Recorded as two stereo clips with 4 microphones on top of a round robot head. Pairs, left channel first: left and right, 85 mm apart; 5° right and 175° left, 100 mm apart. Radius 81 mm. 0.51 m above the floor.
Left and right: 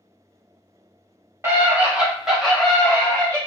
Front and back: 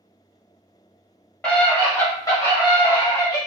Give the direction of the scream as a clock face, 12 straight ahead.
2 o'clock.